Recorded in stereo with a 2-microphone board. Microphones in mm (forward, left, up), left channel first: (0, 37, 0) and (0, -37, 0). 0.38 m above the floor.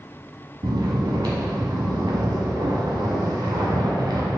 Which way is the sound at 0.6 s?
75° right (ahead or behind).